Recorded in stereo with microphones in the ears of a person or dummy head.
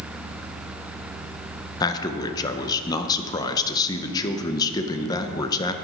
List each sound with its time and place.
1.8 s a man speaking: 20° left (ahead or behind), 0.6 m